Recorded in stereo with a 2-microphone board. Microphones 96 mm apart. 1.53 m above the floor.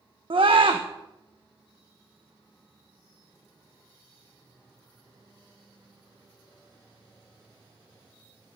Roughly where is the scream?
Right.